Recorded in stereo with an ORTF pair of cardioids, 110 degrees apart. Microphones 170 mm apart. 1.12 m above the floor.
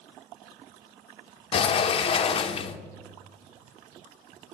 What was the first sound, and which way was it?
A sliding door, 35° left.